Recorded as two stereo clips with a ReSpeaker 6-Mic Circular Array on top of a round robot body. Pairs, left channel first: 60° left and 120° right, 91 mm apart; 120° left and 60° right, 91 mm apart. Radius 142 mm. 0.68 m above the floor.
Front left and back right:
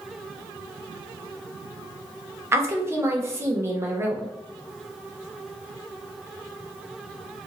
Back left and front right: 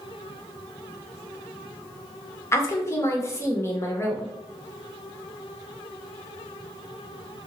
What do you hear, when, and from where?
2.5 s a woman speaking: straight behind, 0.8 m